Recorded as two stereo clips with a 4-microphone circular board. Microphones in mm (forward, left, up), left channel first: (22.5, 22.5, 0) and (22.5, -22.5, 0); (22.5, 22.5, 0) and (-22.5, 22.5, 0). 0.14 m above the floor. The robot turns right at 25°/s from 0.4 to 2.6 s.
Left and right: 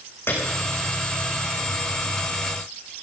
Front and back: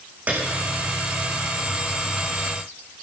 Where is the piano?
120° left, 3.5 m; by 0.5 s 125° left, 3.5 m.